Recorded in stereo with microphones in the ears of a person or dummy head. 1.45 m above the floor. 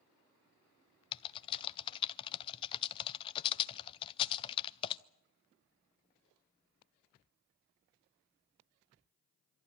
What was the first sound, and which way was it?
Typing on a keyboard, 25° left (ahead or behind).